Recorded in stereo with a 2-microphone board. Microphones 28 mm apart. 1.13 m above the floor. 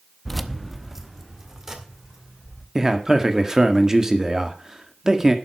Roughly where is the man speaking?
Right.